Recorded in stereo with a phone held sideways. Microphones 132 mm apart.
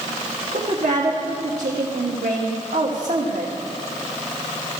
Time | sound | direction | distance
0.5 | a woman speaking | 80° right | 1.2 m